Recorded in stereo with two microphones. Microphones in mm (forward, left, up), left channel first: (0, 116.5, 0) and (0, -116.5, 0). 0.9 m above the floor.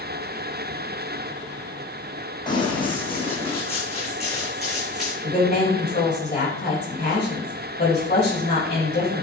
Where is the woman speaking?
45° left (ahead or behind), 4 m.